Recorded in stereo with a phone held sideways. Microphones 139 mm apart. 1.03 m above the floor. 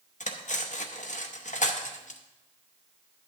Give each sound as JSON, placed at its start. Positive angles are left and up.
{"t": 0.2, "sound": "cutlery clinking", "side_deg": 60, "distance_m": 0.8}